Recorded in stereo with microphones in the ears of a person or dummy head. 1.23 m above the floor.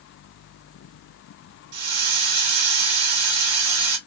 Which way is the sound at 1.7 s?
80° right.